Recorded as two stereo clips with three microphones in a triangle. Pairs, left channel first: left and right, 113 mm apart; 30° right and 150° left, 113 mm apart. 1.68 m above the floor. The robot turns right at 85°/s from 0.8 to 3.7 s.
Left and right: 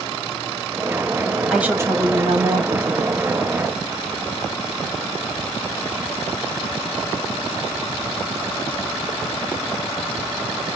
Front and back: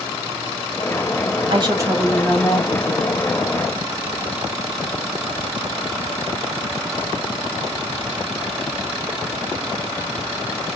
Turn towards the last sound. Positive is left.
turn(degrees=10)